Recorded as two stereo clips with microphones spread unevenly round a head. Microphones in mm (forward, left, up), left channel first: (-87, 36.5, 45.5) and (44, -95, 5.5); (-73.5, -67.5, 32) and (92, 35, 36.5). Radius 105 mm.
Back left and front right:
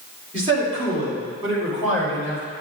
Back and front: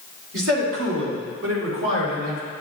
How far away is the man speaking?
About 2.5 m.